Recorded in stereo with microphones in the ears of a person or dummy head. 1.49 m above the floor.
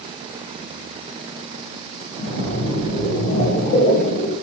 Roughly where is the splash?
Left.